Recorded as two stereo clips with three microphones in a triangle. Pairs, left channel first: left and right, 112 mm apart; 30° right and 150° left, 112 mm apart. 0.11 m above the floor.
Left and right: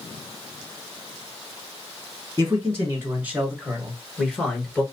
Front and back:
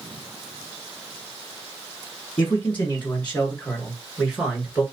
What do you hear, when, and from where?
2.4 s a man speaking: 75° right, 1.8 m; by 4.8 s 100° left, 1.6 m